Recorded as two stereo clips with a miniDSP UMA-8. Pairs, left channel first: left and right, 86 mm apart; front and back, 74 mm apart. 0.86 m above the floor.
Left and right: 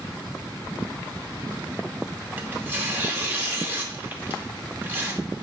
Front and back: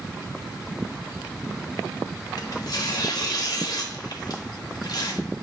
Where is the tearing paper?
25° right, 0.6 m.